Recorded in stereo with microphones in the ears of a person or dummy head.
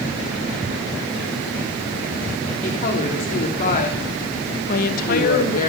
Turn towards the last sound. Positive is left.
turn(degrees=50)  # may be behind; listen again after turning